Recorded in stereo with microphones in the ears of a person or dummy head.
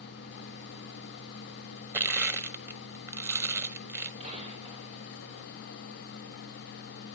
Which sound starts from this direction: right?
A gunshot, at 4.2 s.